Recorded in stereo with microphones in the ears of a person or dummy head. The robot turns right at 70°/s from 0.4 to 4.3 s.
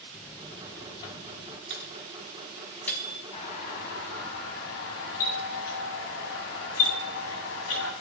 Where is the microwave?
70° right (ahead or behind), 5.5 m; by 3.2 s 35° left (ahead or behind), 5.5 m.